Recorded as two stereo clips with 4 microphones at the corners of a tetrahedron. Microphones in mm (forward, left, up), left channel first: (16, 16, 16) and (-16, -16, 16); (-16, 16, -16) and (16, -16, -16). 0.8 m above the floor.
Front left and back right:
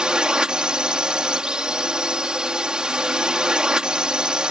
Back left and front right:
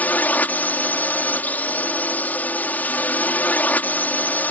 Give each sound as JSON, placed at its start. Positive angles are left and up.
{"t": 0.0, "sound": "a drone", "azimuth_deg": 165}